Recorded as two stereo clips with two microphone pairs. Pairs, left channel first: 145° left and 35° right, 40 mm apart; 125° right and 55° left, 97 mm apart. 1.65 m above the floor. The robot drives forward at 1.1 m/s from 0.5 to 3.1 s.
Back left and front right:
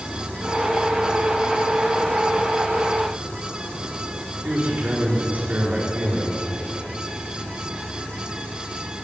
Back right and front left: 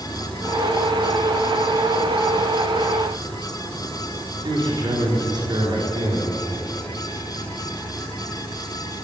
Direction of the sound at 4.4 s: 15° left.